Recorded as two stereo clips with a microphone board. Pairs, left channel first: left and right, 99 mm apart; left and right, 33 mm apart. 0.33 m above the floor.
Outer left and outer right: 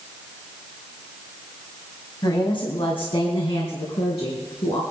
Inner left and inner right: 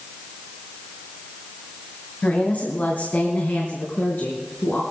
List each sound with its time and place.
2.2 s a woman speaking: 55° left (ahead or behind), 2.5 m; by 4.8 s 70° left (ahead or behind), 4 m